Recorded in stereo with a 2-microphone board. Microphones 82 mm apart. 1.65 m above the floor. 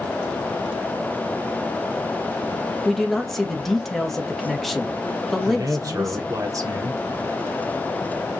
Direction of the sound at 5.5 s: 45° right (ahead or behind).